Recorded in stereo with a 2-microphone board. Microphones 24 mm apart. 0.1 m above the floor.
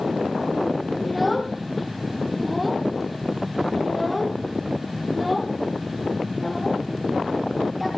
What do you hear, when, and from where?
1.0 s a child speaking: centre (ahead or behind), 2 m